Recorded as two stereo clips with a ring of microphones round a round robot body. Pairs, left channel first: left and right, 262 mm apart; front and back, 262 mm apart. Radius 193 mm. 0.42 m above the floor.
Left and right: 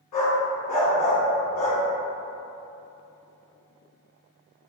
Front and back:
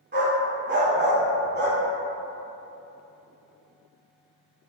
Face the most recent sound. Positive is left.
turn(degrees=125)